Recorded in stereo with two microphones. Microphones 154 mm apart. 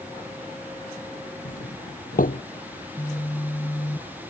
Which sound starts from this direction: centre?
A phone buzzing, at 2.8 s.